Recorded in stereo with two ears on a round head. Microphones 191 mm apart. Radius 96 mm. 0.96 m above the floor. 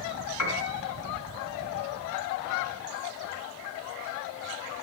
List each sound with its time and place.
0.4 s a piano: 85° left, 4.5 m